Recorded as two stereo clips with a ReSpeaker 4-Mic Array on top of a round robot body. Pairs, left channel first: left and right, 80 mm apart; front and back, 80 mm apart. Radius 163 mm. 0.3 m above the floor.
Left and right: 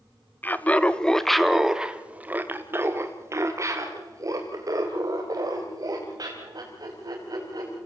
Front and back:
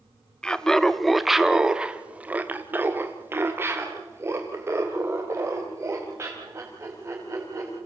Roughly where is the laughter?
Ahead left.